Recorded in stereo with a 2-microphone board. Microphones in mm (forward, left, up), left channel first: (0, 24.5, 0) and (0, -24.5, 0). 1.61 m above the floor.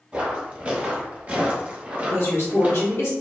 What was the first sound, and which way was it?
Footsteps, 20° right (ahead or behind).